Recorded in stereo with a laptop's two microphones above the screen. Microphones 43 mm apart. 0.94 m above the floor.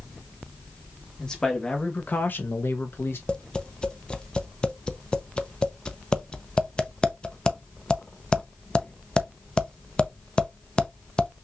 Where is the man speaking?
10° left (ahead or behind), 1.5 m; by 3.2 s 55° left (ahead or behind), 1.1 m.